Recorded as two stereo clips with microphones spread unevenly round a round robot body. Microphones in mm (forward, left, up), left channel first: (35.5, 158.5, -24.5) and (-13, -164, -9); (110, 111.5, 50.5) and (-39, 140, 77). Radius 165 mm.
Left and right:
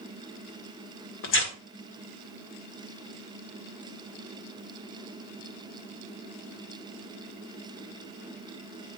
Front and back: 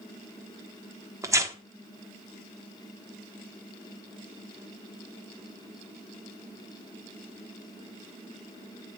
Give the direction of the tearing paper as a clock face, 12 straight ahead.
9 o'clock.